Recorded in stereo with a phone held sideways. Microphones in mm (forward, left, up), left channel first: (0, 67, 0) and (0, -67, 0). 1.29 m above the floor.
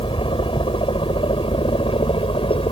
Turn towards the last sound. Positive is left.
turn(degrees=40)  # may be behind; listen again after turning